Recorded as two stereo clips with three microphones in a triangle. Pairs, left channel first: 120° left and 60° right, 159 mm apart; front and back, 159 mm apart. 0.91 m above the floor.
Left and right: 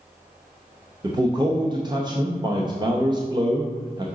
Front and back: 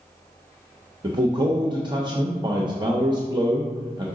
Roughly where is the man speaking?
Behind right.